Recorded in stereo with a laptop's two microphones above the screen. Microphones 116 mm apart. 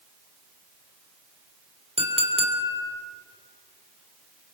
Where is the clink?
65° right (ahead or behind), 3 m.